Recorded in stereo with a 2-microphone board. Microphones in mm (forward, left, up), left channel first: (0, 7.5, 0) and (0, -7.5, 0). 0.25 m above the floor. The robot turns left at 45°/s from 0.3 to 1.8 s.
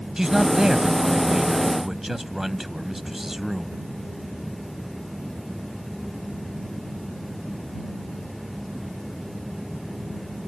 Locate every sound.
0.2 s a man speaking: 75° right; by 3.8 s 140° right